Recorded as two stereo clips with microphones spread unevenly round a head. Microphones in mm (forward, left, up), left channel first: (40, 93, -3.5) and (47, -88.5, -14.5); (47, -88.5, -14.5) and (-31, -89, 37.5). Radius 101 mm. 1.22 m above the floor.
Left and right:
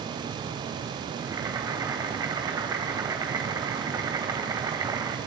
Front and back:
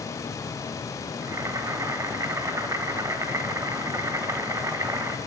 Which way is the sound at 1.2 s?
165° right.